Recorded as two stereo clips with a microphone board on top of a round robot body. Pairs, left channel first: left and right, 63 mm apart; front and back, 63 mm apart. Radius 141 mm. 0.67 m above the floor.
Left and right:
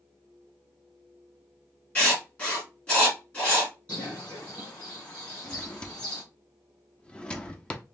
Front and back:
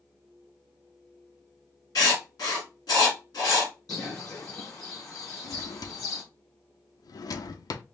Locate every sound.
1.9 s writing: 25° left, 2.5 m
3.9 s a bird: 30° left, 3.5 m
5.4 s a drawer: 15° left, 0.6 m